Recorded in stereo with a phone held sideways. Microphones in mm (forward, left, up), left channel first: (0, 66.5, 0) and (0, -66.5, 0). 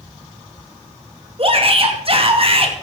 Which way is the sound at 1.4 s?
45° right (ahead or behind).